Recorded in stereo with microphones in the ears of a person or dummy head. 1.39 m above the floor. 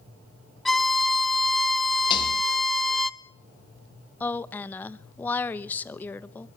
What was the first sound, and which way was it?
A violin, 5° left (ahead or behind).